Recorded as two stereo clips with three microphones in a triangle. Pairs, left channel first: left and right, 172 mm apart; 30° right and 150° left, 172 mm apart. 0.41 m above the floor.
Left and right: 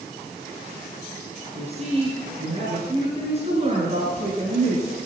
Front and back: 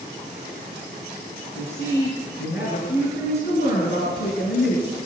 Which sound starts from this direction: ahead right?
A woman speaking, at 1.6 s.